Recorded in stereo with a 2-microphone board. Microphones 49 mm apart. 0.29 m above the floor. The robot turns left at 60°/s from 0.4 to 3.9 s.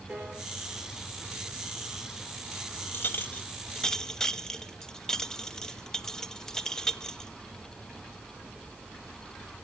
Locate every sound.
0.1 s a piano: 10° right (ahead or behind), 5 m
2.9 s a clink: 45° left (ahead or behind), 0.6 m; by 7.3 s 10° left (ahead or behind), 0.6 m